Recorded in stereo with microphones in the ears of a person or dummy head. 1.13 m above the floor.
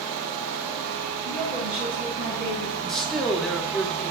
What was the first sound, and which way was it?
A woman speaking, 35° right (ahead or behind).